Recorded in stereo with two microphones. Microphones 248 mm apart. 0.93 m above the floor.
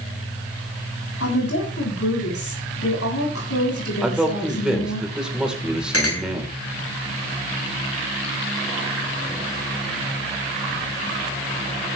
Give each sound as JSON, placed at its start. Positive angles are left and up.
{"t": 1.2, "sound": "a woman speaking", "side_deg": 65, "distance_m": 7.5}
{"t": 4.0, "sound": "a man speaking", "side_deg": -5, "distance_m": 3.5}
{"t": 5.9, "sound": "a clink", "side_deg": 70, "distance_m": 3.0}